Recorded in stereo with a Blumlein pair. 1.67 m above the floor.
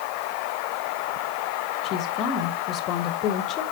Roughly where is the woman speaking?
Ahead left.